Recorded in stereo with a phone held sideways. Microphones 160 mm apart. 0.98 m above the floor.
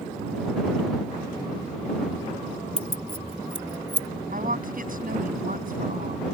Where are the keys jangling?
45° left (ahead or behind); by 4.1 s 20° left (ahead or behind).